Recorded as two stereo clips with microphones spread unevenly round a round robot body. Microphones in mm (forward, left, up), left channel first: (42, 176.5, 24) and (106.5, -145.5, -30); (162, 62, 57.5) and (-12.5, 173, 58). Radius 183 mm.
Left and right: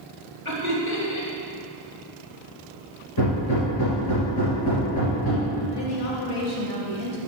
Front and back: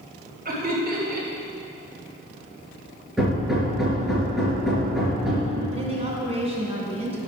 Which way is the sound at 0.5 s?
115° left.